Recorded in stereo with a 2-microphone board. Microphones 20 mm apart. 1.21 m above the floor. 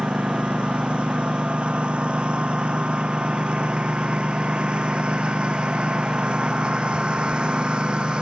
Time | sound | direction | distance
0.0 | a lawn mower | 65° right (ahead or behind) | ?